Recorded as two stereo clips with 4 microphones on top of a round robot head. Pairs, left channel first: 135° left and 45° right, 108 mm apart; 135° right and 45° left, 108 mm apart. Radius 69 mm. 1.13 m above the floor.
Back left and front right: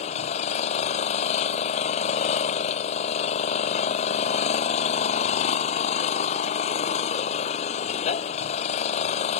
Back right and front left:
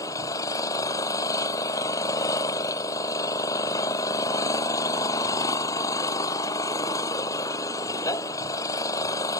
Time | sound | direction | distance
0.0 | an engine running | 165° left | ?